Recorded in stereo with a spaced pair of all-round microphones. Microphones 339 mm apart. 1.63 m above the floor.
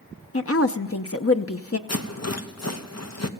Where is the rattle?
50° left (ahead or behind), 1.0 m.